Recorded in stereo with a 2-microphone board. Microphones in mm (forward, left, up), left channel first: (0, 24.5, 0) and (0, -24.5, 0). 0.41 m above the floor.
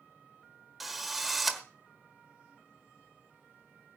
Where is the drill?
Centre (ahead or behind), 1.2 m.